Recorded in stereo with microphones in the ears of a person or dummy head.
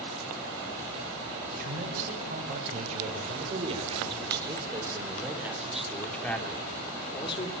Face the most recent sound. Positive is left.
turn(degrees=30)  # may be behind; listen again after turning